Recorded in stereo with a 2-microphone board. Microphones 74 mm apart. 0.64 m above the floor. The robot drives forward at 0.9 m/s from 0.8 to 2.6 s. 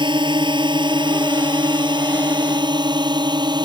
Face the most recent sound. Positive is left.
turn(degrees=-70)  # may be behind; listen again after turning